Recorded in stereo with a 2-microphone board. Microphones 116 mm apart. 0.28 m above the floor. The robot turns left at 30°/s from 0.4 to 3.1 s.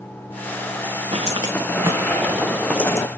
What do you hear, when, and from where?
1.1 s footsteps: 55° right (ahead or behind), 1.8 m; by 3.1 s 30° left (ahead or behind), 0.8 m